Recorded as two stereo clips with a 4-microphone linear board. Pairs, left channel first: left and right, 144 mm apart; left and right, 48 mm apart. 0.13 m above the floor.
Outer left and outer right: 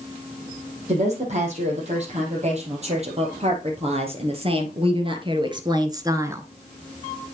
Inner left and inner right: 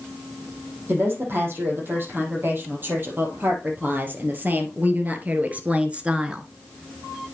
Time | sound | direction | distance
0.9 | a woman speaking | 50° right (ahead or behind) | 4.5 m